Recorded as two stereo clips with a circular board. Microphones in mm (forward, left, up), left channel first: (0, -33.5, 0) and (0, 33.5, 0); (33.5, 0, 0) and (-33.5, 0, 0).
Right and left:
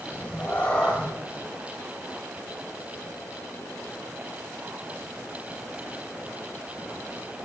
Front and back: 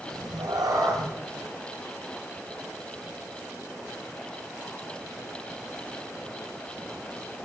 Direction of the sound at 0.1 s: 160° right.